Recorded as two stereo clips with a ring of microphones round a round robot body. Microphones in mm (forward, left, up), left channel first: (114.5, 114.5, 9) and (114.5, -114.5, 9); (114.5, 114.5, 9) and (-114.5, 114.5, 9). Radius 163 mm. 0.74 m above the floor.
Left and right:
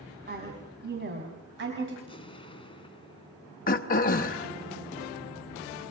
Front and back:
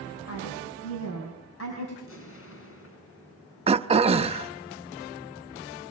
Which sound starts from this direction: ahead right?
A woman speaking, at 0.3 s.